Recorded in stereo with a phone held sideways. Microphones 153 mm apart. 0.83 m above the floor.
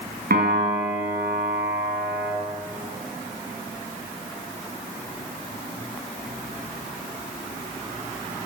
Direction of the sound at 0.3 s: 80° right.